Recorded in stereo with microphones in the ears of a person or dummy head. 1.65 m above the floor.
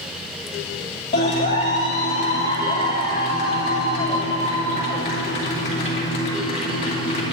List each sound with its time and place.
1.1 s a clap: 40° left (ahead or behind), 3 m